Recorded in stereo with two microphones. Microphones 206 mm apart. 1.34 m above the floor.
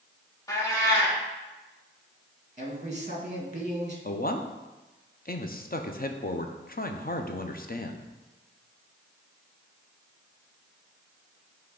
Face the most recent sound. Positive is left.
turn(degrees=45)  # may be behind; listen again after turning